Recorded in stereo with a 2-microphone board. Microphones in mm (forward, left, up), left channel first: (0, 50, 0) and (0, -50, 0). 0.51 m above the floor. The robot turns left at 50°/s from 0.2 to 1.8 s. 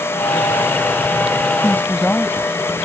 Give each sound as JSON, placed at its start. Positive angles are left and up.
{"t": 1.6, "sound": "a woman speaking", "side_deg": 25}